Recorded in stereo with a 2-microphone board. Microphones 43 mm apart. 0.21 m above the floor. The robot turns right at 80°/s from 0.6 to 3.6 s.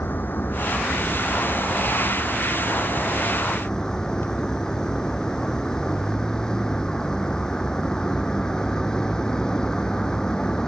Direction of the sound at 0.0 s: 135° left.